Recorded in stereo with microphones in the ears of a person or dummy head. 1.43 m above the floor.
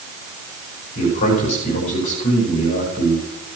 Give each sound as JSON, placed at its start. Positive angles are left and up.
{"t": 0.9, "sound": "a man speaking", "side_deg": 45, "distance_m": 6.0}